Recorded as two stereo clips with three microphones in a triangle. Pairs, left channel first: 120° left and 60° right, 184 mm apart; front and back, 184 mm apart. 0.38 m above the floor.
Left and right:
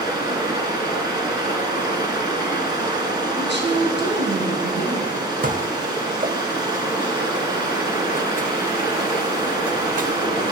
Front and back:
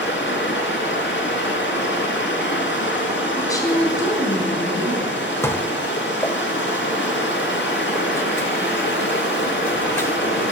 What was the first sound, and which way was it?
Running water, 10° left.